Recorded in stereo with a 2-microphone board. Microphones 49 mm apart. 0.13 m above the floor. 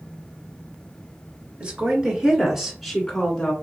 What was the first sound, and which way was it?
A woman speaking, 25° right (ahead or behind).